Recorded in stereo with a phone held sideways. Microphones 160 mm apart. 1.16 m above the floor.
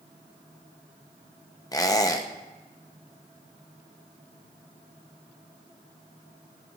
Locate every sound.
1.7 s a squeak: 25° left (ahead or behind), 0.5 m